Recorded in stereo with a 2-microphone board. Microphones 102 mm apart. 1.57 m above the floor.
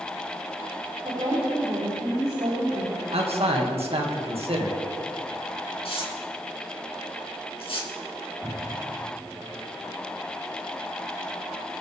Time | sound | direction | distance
1.0 | a woman speaking | 60° right (ahead or behind) | 5 m
3.1 | a man speaking | 75° right (ahead or behind) | 2.5 m
5.8 | tearing paper | 65° left (ahead or behind) | 3.5 m
8.4 | a cupboard door | 20° right (ahead or behind) | 4 m